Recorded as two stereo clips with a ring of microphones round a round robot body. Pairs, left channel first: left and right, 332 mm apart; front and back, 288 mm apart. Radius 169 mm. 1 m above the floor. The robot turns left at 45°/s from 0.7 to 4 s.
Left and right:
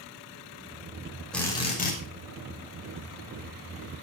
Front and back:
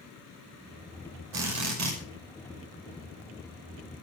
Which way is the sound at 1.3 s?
Straight behind.